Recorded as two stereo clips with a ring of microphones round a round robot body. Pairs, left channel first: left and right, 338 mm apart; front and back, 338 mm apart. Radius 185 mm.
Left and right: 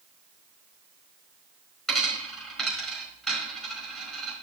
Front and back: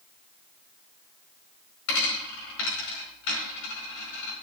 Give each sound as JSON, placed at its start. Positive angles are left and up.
{"t": 1.9, "sound": "a dropped coin", "azimuth_deg": 0, "distance_m": 4.5}